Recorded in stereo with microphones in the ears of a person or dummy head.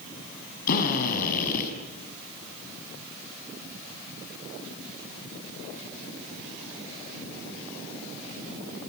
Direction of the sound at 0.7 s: 50° left (ahead or behind).